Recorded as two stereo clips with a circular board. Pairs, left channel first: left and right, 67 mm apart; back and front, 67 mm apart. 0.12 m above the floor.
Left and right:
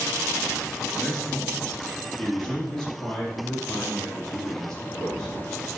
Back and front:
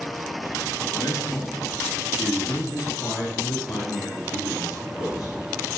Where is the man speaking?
165° left, 3 m; by 5.3 s 170° left, 6 m.